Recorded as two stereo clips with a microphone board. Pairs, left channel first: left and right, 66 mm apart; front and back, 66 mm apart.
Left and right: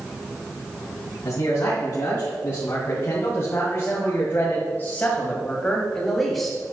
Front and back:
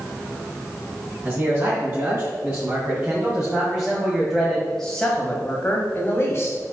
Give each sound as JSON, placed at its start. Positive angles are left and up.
{"t": 1.2, "sound": "a man speaking", "azimuth_deg": 130, "distance_m": 3.0}